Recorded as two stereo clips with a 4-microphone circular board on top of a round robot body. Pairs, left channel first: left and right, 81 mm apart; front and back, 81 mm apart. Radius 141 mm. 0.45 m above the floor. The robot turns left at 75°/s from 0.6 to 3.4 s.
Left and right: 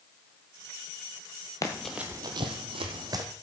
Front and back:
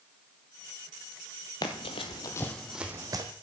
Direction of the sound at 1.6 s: 45° left.